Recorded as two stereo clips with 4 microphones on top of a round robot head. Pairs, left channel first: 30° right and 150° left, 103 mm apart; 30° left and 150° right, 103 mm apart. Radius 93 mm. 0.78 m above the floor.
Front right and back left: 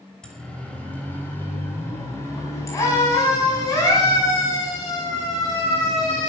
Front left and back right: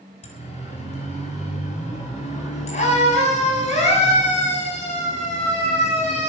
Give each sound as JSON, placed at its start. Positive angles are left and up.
{"t": 0.2, "sound": "a siren", "azimuth_deg": 50, "distance_m": 4.5}